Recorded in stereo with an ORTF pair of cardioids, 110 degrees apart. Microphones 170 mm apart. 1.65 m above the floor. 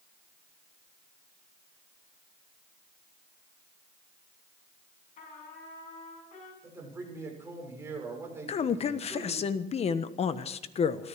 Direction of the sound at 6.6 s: 15° right.